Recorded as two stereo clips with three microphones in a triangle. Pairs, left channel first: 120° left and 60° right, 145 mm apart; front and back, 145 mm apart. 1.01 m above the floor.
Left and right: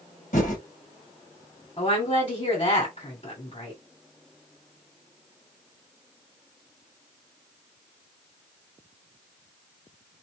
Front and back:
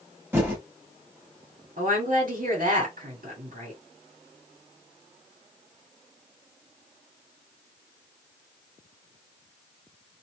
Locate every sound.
0.3 s typing on a keyboard: 105° left, 1.9 m
1.8 s a woman speaking: 170° left, 1.9 m